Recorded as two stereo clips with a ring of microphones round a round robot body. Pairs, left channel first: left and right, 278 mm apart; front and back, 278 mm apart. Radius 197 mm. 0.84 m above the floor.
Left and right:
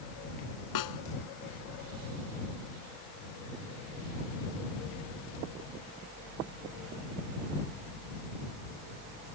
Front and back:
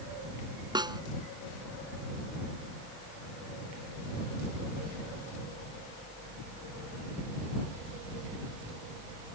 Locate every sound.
0.8 s a snare drum: 105° left